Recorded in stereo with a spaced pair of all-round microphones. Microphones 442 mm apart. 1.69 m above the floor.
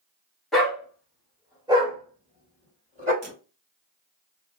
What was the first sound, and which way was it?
A dog barking, centre (ahead or behind).